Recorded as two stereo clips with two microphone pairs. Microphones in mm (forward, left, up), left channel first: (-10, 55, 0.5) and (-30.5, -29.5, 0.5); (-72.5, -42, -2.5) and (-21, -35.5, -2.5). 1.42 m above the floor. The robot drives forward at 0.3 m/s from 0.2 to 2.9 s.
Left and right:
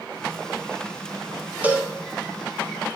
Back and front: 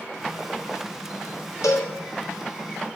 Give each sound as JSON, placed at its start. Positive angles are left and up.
{"t": 1.6, "sound": "a cowbell", "azimuth_deg": -175, "distance_m": 0.9}